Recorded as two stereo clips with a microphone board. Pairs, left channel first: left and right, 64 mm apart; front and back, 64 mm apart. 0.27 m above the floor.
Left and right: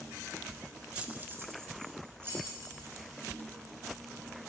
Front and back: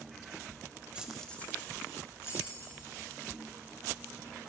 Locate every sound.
0.9 s keys jangling: 135° right, 0.6 m; by 3.1 s 35° right, 2.5 m